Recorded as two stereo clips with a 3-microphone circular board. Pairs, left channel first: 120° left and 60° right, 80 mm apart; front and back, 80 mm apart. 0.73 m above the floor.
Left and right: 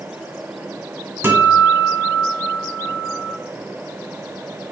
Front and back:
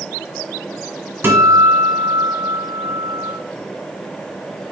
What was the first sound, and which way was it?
A guitar, 120° right.